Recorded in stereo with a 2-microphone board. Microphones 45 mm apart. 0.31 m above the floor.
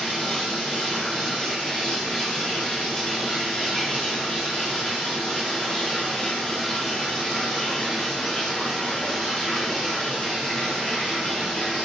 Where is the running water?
20° left (ahead or behind), 4 m.